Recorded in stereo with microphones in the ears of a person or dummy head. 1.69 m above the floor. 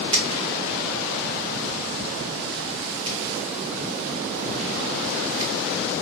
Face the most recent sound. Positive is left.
turn(degrees=-30)  # may be behind; listen again after turning